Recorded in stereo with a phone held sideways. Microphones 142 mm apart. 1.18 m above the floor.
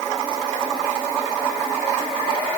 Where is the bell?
I don't hear a bell.